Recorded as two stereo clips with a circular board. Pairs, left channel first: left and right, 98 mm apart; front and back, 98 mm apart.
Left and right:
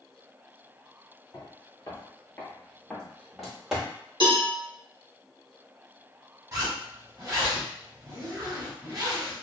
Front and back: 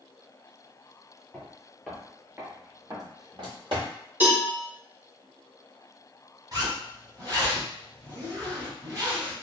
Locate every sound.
1.3 s footsteps: 70° left, 1.3 m; by 3.9 s 170° right, 1.8 m
4.2 s a cowbell: 115° right, 1.3 m
6.5 s a zipper: 135° right, 1.6 m